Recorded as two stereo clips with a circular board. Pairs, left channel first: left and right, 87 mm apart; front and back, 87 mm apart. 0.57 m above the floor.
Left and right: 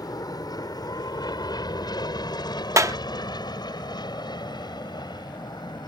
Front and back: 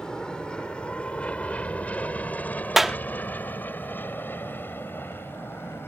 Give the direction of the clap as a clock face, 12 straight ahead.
3 o'clock.